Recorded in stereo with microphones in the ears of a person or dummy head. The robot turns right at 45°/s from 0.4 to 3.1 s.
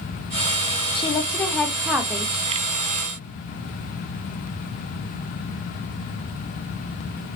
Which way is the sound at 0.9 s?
140° left.